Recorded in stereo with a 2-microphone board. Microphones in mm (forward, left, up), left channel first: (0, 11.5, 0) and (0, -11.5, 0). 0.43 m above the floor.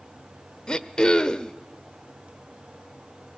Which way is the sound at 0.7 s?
35° left (ahead or behind).